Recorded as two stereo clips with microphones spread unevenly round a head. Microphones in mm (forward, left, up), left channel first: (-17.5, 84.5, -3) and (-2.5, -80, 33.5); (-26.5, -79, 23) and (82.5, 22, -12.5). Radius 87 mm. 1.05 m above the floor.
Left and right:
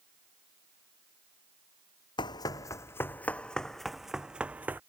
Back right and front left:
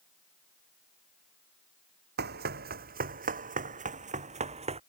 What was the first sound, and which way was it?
Running footsteps, 25° left.